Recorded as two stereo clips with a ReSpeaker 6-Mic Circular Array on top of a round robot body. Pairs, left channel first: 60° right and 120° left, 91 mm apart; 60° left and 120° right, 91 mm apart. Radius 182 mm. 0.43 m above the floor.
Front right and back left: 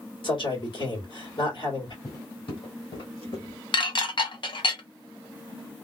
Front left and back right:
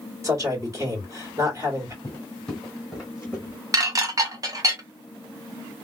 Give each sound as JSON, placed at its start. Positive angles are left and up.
{"t": 0.2, "sound": "a man speaking", "azimuth_deg": -70, "distance_m": 2.5}
{"t": 2.0, "sound": "footsteps", "azimuth_deg": -5, "distance_m": 0.7}
{"t": 3.7, "sound": "dishes clattering", "azimuth_deg": -75, "distance_m": 0.9}